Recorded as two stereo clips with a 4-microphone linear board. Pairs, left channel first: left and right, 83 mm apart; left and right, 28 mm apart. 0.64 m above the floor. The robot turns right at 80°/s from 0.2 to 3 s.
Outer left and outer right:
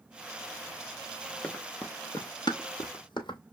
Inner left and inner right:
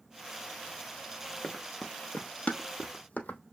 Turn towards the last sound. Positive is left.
turn(degrees=65)  # may be behind; listen again after turning